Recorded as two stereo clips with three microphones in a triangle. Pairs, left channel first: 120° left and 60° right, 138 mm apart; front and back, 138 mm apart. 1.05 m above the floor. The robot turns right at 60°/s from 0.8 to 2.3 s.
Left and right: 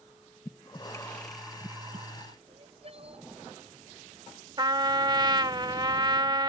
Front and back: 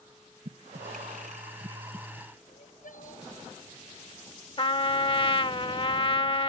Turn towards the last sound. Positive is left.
turn(degrees=-20)